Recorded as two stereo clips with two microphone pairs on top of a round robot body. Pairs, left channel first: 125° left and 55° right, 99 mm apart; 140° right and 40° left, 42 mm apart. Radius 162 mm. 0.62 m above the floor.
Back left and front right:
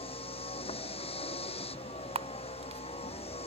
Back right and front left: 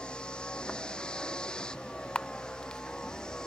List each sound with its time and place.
0.0 s a vehicle: 150° left; by 3.5 s 145° left
2.1 s a camera shutter: 70° right